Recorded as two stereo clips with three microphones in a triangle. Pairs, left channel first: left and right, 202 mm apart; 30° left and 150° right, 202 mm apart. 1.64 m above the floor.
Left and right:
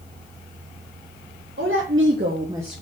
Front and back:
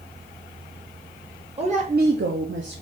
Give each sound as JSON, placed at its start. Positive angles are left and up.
{"t": 1.6, "sound": "a woman speaking", "azimuth_deg": -90, "distance_m": 1.3}